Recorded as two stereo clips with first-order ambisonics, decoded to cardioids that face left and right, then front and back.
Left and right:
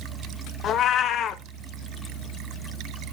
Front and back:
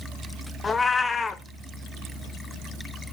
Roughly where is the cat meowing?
Ahead left.